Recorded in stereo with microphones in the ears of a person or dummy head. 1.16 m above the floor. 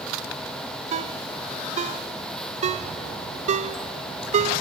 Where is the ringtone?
40° right (ahead or behind), 0.6 m.